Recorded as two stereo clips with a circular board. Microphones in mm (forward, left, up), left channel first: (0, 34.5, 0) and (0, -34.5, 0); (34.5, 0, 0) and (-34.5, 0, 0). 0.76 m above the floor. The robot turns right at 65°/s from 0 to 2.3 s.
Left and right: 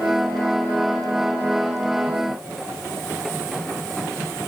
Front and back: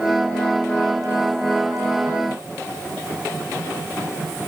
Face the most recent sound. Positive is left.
No sound to turn to.